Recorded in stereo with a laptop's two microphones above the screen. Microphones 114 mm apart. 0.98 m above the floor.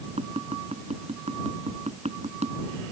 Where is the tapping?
80° right.